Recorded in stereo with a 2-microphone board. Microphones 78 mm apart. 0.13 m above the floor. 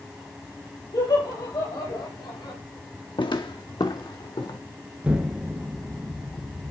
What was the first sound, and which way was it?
Laughter, 65° left (ahead or behind).